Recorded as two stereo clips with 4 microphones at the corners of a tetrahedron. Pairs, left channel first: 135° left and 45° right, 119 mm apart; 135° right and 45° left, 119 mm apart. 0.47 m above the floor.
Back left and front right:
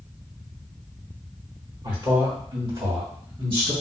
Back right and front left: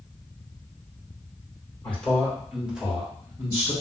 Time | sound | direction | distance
1.8 | a man speaking | 65° right | 1.6 m